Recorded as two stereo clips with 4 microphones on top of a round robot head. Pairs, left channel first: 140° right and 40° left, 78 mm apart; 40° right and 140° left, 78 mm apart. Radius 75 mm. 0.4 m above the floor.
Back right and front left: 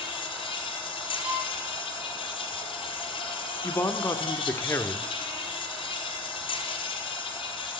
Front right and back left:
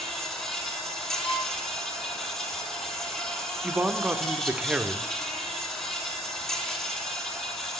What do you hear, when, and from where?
0.0 s an insect: 130° right, 1.9 m
1.2 s a violin: 35° right, 5 m
3.6 s a man speaking: 160° right, 0.9 m